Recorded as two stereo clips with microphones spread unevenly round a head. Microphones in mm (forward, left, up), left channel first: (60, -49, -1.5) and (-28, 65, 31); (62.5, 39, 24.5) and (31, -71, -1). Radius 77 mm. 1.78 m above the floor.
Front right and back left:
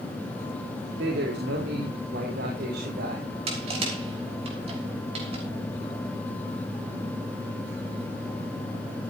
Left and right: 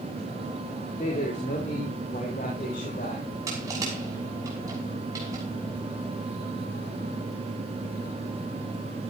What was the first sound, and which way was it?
A man speaking, 120° left.